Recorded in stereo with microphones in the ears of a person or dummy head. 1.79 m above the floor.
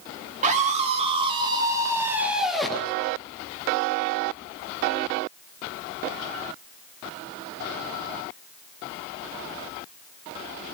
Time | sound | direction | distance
0.4 | a scream | 40° right (ahead or behind) | 3.5 m